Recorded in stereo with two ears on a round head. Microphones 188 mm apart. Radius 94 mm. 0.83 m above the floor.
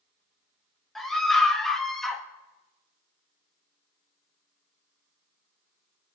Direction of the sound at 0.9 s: Centre (ahead or behind).